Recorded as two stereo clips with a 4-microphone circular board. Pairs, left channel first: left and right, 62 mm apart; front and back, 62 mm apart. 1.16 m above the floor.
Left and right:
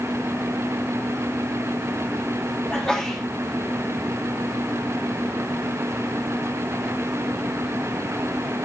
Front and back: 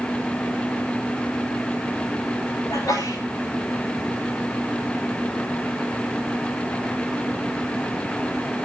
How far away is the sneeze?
About 4 m.